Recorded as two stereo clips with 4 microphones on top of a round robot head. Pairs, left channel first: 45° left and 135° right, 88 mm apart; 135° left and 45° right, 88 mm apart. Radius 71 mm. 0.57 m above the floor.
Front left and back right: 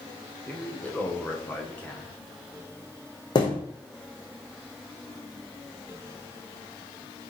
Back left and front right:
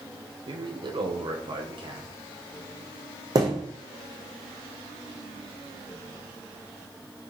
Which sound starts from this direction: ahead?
A thud, at 3.4 s.